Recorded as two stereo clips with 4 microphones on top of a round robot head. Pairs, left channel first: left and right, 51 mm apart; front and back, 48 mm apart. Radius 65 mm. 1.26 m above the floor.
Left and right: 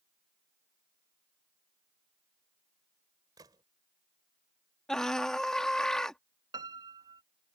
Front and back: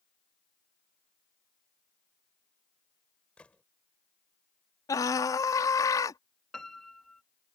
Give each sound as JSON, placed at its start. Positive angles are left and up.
{"t": 3.4, "sound": "a gunshot", "azimuth_deg": -75}
{"t": 4.9, "sound": "a scream", "azimuth_deg": 5}
{"t": 6.5, "sound": "a piano", "azimuth_deg": -85}